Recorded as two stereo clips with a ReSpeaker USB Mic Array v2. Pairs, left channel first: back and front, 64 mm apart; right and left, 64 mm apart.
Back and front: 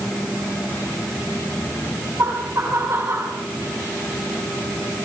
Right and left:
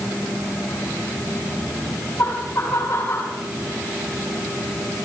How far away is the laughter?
About 6.5 m.